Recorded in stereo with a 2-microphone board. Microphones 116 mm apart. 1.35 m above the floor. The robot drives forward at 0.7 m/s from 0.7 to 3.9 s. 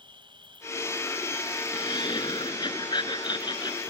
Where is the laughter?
45° left (ahead or behind); by 3.8 s 40° left (ahead or behind).